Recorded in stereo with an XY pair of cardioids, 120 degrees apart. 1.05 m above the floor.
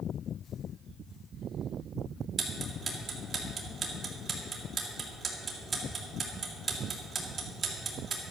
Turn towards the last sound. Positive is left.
turn(degrees=-35)